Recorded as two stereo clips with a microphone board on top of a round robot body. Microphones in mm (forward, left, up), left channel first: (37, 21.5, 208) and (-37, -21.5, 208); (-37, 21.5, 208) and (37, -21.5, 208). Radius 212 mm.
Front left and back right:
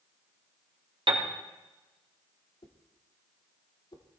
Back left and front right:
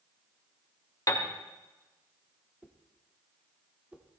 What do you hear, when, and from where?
1.1 s a piano: 160° right, 2 m
2.6 s a whoosh: 45° left, 1.9 m